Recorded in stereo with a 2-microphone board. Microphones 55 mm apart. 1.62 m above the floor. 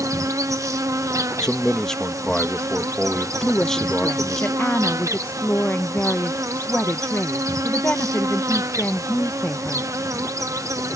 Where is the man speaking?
10° left (ahead or behind).